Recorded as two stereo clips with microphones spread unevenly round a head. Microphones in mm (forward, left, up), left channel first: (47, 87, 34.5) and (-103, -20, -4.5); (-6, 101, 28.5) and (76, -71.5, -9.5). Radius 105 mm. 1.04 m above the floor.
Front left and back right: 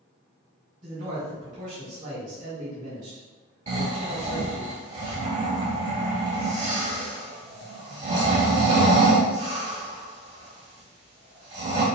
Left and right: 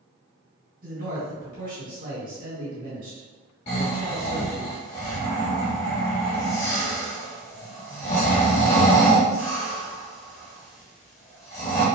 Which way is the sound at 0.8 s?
105° right.